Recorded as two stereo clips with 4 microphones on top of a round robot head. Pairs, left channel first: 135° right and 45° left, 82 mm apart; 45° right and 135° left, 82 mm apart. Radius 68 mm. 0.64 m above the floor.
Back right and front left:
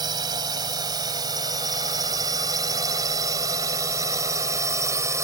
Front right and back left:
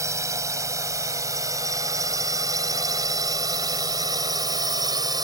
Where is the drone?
85° left; by 5.2 s 100° left.